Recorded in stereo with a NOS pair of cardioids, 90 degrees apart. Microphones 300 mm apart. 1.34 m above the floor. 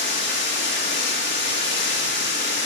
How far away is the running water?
About 1.9 m.